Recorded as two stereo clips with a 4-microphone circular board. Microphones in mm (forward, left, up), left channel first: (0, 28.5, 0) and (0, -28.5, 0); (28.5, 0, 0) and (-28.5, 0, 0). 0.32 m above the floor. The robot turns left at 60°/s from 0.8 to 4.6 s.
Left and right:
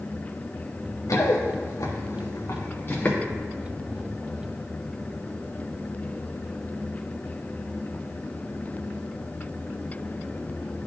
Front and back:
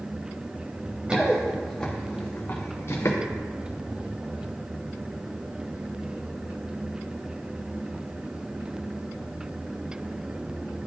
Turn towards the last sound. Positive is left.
turn(degrees=-55)